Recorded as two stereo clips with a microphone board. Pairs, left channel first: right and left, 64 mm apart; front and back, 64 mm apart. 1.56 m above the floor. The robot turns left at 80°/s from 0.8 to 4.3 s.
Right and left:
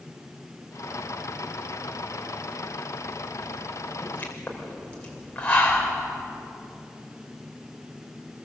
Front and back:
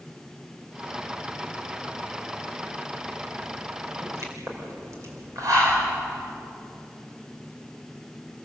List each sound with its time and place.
4.0 s a pop: 135° right, 5 m; by 5.9 s 160° right, 5 m